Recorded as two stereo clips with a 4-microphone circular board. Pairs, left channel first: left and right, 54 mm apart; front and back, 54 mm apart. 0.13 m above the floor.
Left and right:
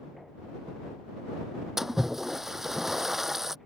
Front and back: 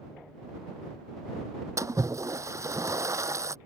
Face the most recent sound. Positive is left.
turn(degrees=-175)